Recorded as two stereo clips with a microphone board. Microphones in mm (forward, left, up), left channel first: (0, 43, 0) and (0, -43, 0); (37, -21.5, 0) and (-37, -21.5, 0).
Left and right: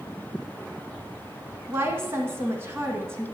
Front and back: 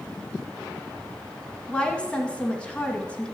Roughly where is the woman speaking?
Ahead right.